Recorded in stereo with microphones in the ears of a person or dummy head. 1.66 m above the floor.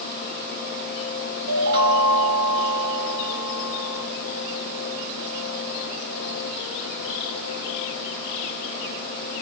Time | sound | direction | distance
1.5 | a chime | 55° right (ahead or behind) | 1.8 m